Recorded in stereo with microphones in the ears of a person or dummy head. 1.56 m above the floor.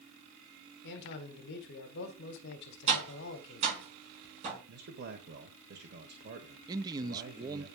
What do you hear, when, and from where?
0.8 s a man speaking: 65° left (ahead or behind), 1.7 m
2.9 s tapping: 35° right (ahead or behind), 6.5 m
4.7 s a man speaking: 55° right (ahead or behind), 1.3 m
6.7 s a man speaking: 25° right (ahead or behind), 0.7 m